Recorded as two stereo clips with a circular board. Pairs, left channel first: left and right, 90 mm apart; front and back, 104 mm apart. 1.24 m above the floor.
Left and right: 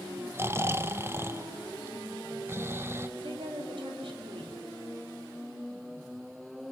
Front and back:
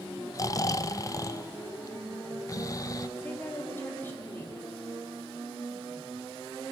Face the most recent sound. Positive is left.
turn(degrees=-70)